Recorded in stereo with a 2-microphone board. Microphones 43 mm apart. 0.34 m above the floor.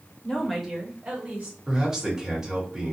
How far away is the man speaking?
About 1.3 m.